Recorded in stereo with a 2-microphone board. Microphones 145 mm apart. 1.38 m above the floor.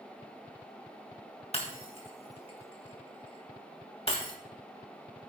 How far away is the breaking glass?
About 3 m.